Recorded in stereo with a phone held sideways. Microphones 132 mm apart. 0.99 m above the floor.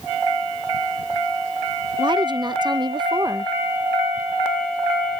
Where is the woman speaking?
35° right (ahead or behind).